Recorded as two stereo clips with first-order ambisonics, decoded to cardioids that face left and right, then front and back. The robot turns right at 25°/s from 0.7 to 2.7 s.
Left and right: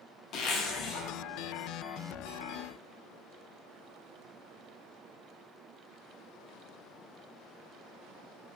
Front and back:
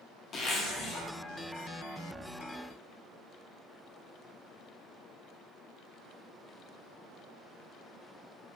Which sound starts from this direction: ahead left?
A zipper, at 0.3 s.